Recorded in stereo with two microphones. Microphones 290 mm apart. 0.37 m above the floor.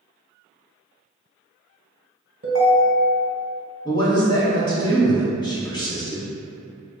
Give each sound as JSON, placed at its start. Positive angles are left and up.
{"t": 2.4, "sound": "a ringtone", "side_deg": -50, "distance_m": 1.1}
{"t": 3.9, "sound": "a man speaking", "side_deg": 15, "distance_m": 1.2}